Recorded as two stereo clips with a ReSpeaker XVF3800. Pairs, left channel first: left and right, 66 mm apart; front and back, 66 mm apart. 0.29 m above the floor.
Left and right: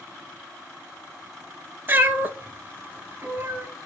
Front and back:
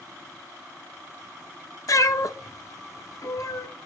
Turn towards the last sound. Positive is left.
turn(degrees=-30)